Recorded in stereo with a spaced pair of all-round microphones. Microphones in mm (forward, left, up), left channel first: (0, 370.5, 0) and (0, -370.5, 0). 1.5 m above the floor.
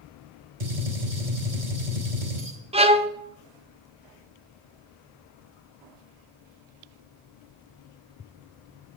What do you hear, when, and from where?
0.6 s a gunshot: 55° right (ahead or behind), 3.5 m
2.7 s a violin: 10° right (ahead or behind), 0.6 m